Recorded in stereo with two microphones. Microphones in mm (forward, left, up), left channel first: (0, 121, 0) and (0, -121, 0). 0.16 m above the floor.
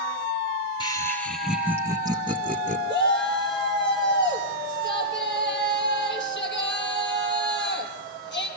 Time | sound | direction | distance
0.8 | laughter | 20° left (ahead or behind) | 1.4 m
2.9 | a shout | 50° left (ahead or behind) | 5 m